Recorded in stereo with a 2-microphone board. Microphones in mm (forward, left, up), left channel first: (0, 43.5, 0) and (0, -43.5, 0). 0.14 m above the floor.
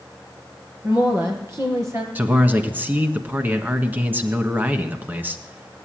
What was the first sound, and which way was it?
A woman speaking, 35° right (ahead or behind).